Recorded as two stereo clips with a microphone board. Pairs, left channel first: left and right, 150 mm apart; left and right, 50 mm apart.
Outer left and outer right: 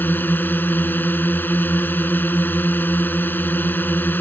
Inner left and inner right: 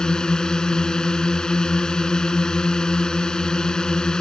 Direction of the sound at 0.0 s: 15° left (ahead or behind).